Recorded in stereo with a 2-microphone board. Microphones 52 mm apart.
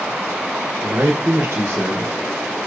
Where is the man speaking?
45° right (ahead or behind), 2 m.